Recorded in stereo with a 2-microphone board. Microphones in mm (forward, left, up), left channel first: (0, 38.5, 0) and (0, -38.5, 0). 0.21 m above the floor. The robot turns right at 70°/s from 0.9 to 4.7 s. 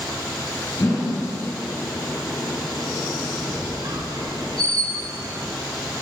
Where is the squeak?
145° right, 1.0 m; by 5.6 s 55° right, 1.0 m.